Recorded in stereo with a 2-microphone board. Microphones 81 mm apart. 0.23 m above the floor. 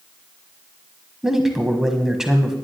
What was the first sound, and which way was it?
A man speaking, 5° right (ahead or behind).